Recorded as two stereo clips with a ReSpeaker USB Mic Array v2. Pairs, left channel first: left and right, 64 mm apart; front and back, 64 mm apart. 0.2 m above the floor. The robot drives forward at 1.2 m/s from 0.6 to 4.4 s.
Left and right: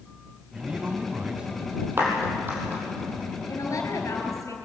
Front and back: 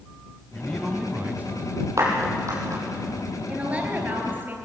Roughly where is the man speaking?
Ahead right.